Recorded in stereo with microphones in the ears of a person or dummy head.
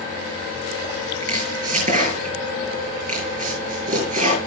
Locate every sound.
1.2 s chopping: 40° right (ahead or behind), 6.5 m